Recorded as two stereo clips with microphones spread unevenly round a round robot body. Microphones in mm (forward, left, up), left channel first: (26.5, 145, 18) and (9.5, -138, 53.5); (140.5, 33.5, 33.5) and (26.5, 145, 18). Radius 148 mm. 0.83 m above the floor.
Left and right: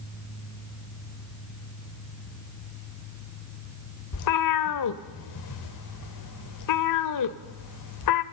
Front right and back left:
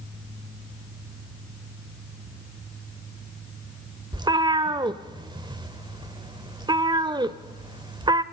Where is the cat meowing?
70° left, 0.9 m.